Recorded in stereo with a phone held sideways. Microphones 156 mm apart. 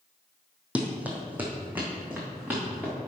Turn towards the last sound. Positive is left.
turn(degrees=-10)  # may be behind; listen again after turning